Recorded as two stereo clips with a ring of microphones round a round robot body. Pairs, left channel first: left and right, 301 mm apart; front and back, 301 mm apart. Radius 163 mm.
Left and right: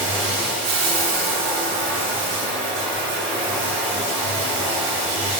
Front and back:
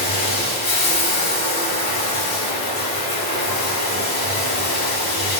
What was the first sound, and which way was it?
Running water, 60° right.